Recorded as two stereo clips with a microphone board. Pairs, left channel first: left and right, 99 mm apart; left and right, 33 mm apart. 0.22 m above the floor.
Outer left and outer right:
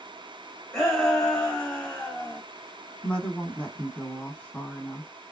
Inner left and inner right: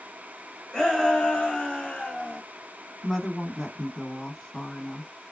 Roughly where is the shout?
Centre.